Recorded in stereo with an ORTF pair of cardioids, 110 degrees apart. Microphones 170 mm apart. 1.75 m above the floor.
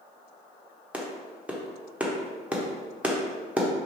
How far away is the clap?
About 1.1 m.